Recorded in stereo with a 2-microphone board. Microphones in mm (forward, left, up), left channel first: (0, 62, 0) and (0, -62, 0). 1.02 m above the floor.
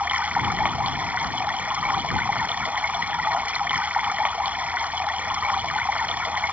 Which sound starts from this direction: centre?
Running water, at 0.0 s.